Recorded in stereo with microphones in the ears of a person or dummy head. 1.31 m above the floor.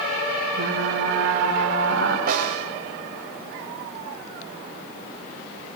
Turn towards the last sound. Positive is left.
turn(degrees=-50)  # may be behind; listen again after turning